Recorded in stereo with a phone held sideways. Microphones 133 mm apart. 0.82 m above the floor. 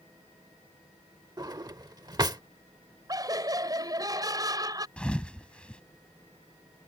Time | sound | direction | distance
1.4 | a drawer | 30° right (ahead or behind) | ?
3.1 | laughter | 30° right (ahead or behind) | ?
5.0 | a thud | 10° left (ahead or behind) | ?